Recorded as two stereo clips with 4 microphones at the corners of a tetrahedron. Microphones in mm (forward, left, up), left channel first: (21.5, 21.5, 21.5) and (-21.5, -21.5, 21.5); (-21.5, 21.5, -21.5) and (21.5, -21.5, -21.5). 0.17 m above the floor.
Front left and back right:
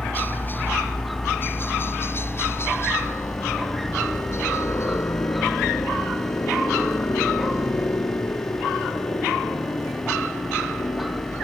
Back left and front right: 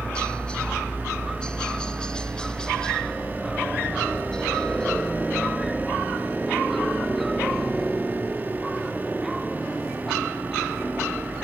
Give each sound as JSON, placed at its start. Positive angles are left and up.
{"t": 0.0, "sound": "a helicopter", "azimuth_deg": 75}